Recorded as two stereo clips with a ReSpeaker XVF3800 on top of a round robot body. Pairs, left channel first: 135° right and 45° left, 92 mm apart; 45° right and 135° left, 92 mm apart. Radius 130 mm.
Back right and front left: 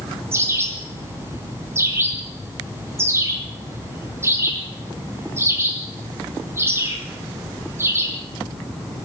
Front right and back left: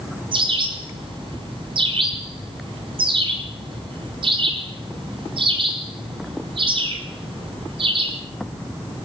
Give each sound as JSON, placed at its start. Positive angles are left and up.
{"t": 0.3, "sound": "a bird", "azimuth_deg": 110, "distance_m": 5.5}